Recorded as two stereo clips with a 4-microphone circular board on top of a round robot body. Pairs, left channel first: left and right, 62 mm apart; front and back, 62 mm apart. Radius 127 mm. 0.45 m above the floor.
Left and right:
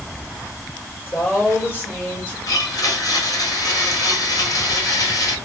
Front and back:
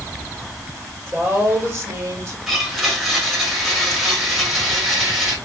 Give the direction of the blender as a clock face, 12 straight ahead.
9 o'clock.